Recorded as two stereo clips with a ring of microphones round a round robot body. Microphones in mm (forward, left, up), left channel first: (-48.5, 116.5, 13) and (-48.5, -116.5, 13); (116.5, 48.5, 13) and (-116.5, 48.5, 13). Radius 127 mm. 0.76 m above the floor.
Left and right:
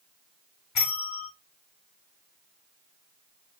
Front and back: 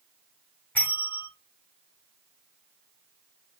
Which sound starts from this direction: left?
A bell, at 0.8 s.